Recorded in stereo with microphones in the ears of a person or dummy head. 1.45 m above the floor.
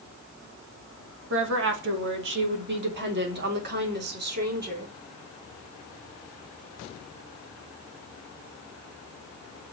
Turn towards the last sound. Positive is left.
turn(degrees=-55)  # may be behind; listen again after turning